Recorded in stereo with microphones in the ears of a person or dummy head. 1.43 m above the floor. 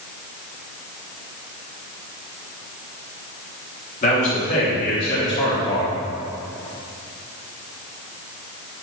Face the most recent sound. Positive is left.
turn(degrees=75)  # may be behind; listen again after turning